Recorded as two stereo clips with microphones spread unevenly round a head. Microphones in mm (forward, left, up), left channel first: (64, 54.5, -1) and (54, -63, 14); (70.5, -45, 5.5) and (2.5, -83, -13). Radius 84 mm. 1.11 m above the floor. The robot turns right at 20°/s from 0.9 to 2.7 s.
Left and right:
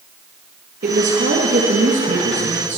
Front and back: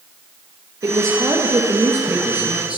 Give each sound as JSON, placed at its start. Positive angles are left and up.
{"t": 0.8, "sound": "a woman speaking", "azimuth_deg": -110, "distance_m": 1.0}